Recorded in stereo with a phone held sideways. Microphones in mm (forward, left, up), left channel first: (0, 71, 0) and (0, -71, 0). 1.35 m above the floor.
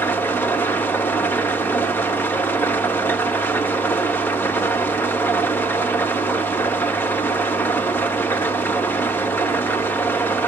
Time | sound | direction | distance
0.0 | an engine running | 15° left (ahead or behind) | 0.9 m